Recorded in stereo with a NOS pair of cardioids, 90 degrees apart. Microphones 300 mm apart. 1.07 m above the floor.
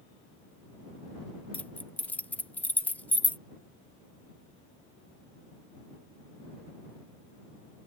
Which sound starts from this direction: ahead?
Keys jangling, at 1.5 s.